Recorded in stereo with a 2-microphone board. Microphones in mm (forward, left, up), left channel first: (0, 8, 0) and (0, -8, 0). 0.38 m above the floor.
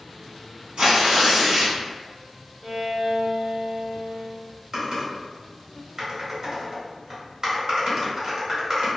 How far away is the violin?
About 1.1 m.